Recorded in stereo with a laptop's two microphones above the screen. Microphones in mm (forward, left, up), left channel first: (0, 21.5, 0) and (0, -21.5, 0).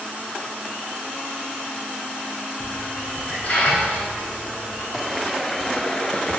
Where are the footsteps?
Centre (ahead or behind), 1.4 m; by 6.4 s 25° left (ahead or behind), 1.1 m.